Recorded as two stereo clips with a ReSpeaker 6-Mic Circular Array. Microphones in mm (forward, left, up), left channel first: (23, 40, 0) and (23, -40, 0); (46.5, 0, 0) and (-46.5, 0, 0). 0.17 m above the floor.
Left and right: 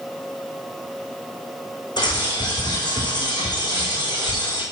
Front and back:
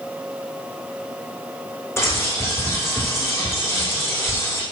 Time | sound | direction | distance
2.0 | a bird | 60° left | 5.5 m